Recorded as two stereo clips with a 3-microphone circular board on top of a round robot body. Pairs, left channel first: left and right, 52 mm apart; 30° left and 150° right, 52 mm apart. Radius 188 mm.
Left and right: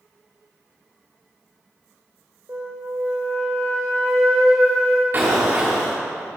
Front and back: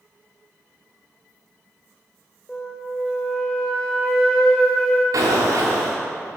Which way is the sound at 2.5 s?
45° right.